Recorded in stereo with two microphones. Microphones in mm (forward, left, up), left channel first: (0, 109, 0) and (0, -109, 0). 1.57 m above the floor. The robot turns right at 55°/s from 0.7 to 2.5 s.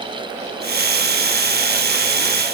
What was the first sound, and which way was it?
Only background noise.